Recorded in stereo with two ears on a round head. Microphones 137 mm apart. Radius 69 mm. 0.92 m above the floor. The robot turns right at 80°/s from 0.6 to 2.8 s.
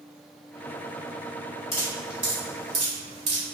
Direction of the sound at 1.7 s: 25° left (ahead or behind).